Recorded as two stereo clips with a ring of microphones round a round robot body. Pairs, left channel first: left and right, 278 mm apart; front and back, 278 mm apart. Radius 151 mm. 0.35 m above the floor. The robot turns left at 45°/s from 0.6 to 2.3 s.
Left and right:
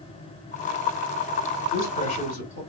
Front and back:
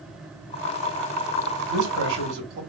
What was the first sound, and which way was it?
A man speaking, 170° left.